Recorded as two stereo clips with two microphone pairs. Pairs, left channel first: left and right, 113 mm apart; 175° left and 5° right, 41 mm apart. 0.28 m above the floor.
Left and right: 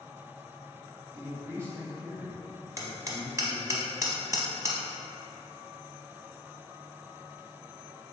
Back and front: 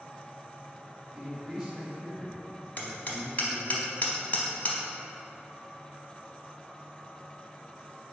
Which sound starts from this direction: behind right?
Hammering, at 2.8 s.